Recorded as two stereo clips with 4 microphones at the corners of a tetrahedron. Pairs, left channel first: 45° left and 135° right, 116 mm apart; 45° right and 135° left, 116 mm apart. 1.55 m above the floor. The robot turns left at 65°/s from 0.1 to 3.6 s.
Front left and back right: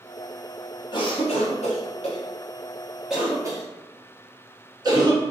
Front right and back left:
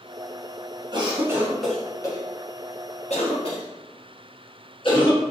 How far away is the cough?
About 1.0 m.